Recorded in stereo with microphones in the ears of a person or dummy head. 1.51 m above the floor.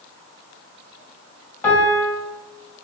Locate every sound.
1.6 s a piano: 5° left (ahead or behind), 1.2 m